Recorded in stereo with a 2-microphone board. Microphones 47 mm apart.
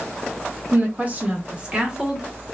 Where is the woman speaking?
40° right (ahead or behind), 0.9 m; by 2.3 s 10° right (ahead or behind), 1.1 m.